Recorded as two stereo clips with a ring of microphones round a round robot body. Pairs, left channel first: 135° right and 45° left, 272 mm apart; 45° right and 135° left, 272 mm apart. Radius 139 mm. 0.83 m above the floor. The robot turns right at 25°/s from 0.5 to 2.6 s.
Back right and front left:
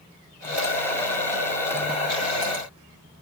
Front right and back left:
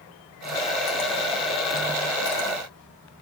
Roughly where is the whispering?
I don't hear whispering.